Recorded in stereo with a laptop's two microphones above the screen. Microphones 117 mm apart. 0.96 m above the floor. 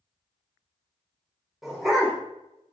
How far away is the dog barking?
About 1.3 m.